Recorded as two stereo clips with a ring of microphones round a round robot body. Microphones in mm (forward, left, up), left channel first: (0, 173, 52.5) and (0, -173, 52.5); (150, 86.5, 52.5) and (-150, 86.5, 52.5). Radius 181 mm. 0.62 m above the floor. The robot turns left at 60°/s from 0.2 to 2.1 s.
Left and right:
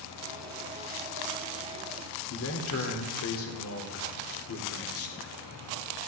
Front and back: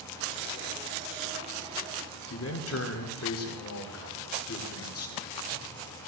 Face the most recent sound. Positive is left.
turn(degrees=40)